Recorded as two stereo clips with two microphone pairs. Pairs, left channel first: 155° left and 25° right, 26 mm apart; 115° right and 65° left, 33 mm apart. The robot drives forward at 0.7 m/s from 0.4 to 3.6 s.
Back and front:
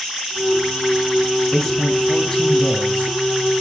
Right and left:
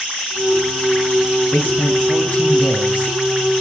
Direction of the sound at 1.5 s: 130° right.